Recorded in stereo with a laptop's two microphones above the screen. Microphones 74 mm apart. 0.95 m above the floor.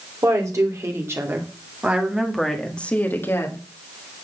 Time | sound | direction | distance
0.2 | a woman speaking | 45° right (ahead or behind) | 3 m